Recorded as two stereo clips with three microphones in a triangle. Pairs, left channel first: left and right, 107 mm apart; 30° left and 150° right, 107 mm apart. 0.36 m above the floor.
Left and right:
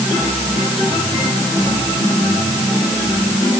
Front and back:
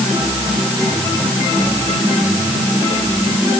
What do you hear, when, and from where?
Only background noise.